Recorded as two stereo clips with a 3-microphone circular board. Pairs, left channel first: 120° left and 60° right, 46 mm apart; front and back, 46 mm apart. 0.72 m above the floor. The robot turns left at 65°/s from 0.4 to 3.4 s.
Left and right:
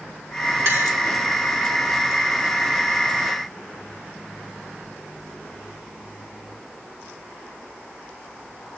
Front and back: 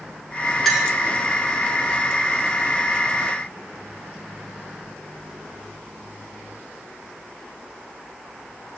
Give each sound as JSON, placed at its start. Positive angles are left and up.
{"t": 0.7, "sound": "a clink", "azimuth_deg": -85, "distance_m": 2.0}